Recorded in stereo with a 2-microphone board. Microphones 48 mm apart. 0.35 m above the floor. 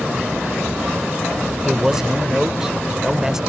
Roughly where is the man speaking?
Centre.